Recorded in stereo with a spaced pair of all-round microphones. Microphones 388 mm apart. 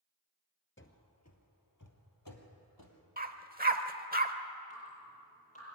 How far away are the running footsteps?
About 1.6 m.